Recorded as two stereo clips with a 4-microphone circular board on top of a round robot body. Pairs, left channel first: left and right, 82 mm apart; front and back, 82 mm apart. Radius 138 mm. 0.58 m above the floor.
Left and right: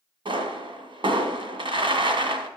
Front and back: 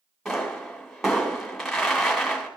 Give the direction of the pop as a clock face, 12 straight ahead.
3 o'clock.